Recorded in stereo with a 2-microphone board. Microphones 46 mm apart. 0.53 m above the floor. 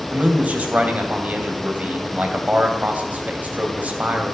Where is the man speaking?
35° right (ahead or behind), 3 m.